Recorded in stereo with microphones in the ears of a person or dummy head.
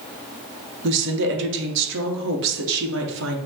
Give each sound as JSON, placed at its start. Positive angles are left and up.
{"t": 0.8, "sound": "a woman speaking", "side_deg": -60, "distance_m": 0.9}